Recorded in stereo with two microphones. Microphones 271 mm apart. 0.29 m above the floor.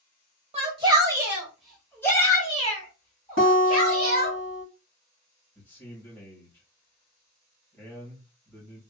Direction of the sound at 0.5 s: 20° right (ahead or behind).